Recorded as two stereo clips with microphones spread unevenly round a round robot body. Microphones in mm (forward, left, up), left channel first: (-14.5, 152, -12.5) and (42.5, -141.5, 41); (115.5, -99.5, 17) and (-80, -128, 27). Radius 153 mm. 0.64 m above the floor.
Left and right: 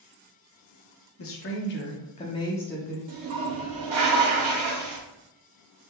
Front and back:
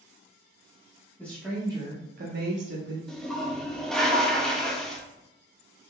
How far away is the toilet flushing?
About 1.0 m.